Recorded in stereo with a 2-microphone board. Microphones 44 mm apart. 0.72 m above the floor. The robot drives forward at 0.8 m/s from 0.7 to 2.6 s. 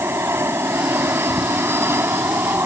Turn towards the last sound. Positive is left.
turn(degrees=-65)  # may be behind; listen again after turning